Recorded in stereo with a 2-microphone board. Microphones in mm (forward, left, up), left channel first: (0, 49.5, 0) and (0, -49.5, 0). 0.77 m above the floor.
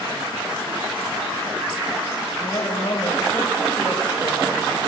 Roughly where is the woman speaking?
Left.